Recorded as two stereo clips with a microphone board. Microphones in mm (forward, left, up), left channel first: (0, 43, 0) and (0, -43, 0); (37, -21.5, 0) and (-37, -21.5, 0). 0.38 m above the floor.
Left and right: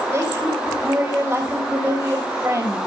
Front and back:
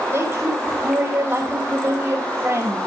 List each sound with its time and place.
0.1 s a woman speaking: 135° right, 2 m